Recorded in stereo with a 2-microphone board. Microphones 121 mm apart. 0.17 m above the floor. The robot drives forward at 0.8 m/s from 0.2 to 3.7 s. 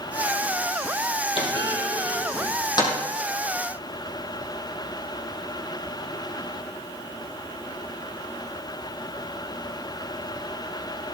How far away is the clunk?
About 3.5 m.